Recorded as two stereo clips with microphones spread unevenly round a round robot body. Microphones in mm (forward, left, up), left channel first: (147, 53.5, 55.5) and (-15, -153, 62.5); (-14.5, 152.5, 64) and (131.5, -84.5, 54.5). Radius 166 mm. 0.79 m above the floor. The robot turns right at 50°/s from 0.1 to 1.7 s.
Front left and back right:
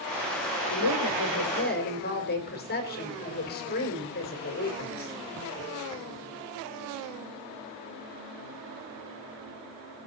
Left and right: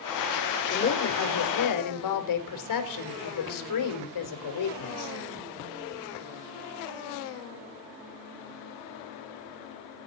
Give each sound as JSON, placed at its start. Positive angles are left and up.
{"t": 0.7, "sound": "a woman speaking", "azimuth_deg": 65, "distance_m": 3.5}